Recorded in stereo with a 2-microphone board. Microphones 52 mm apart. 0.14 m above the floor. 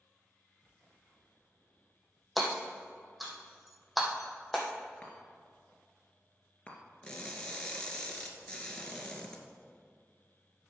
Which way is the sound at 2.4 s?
Centre (ahead or behind).